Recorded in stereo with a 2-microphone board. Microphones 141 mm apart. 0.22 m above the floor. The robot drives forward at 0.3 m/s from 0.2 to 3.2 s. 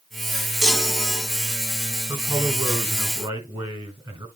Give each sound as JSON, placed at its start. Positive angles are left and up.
{"t": 0.6, "sound": "a chime", "side_deg": 5, "distance_m": 0.9}
{"t": 2.1, "sound": "a man speaking", "side_deg": -35, "distance_m": 3.0}